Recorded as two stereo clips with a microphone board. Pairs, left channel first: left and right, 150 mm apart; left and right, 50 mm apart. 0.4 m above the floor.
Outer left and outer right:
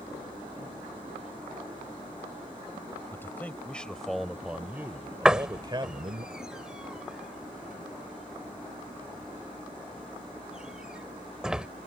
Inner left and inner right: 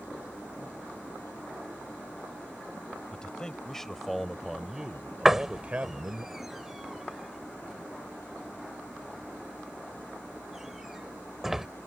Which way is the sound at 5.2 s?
5° right (ahead or behind).